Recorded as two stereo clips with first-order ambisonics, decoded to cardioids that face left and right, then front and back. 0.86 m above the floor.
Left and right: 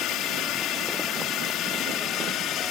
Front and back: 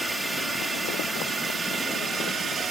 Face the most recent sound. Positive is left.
turn(degrees=120)